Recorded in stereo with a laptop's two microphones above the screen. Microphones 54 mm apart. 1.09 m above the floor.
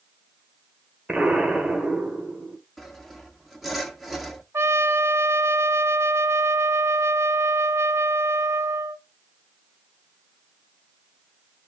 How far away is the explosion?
About 1.7 m.